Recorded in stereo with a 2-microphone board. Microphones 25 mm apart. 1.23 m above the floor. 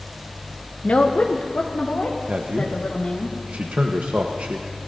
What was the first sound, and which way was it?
A woman speaking, 55° left (ahead or behind).